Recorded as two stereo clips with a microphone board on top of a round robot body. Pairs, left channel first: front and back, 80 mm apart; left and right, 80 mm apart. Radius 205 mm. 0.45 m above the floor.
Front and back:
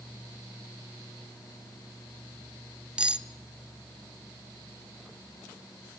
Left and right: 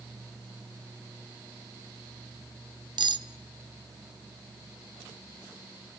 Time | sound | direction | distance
3.0 | cutlery clinking | 100° right | 1.2 m